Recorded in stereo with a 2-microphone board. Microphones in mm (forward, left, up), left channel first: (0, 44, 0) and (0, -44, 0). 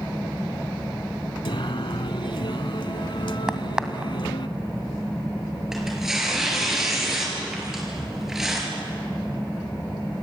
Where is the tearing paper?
5° right (ahead or behind), 6 m.